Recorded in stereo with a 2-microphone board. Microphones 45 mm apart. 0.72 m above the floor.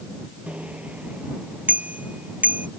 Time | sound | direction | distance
0.5 | a bicycle bell | 30° right (ahead or behind) | ?